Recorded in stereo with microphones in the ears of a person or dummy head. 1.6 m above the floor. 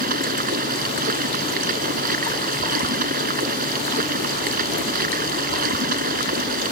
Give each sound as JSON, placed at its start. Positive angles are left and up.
{"t": 0.0, "sound": "running water", "side_deg": -45}